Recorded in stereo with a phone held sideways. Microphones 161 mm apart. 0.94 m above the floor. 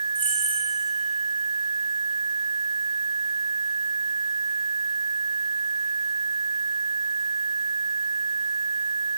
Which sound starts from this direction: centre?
Keys jangling, at 0.1 s.